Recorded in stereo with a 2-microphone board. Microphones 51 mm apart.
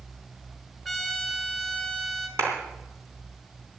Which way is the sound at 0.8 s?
Centre (ahead or behind).